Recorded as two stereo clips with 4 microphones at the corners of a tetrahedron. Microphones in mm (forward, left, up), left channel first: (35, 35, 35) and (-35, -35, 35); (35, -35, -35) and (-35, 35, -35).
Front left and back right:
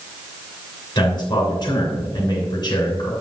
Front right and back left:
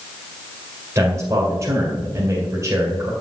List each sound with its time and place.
0.9 s a man speaking: 80° left, 2.5 m